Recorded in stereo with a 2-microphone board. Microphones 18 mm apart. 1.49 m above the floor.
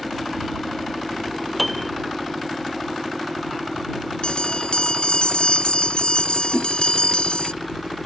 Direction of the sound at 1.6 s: Centre (ahead or behind).